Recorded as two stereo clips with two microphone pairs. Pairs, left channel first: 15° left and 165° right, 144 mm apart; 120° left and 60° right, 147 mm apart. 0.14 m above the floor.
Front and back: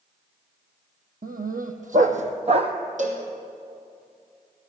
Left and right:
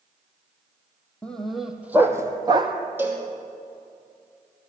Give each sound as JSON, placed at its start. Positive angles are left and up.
{"t": 1.2, "sound": "a dog barking", "azimuth_deg": -160, "distance_m": 1.5}
{"t": 3.0, "sound": "a cowbell", "azimuth_deg": -135, "distance_m": 2.5}